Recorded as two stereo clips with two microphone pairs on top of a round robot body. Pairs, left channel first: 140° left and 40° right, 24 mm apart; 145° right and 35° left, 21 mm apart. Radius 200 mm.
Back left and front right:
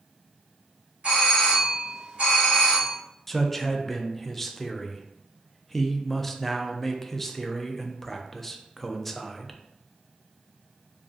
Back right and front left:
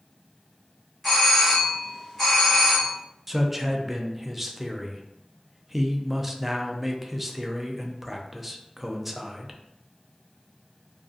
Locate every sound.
1.0 s a doorbell: 60° right, 1.6 m
3.3 s a man speaking: 105° left, 0.6 m